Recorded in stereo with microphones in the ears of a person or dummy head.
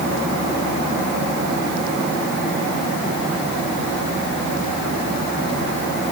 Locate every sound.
Only background noise.